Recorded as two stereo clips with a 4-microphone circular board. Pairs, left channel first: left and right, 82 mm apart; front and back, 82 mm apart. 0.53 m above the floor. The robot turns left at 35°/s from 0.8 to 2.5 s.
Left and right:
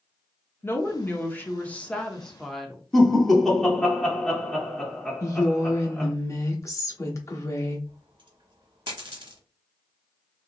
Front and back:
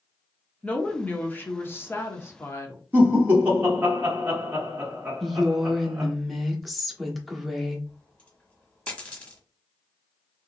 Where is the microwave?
No microwave in this recording.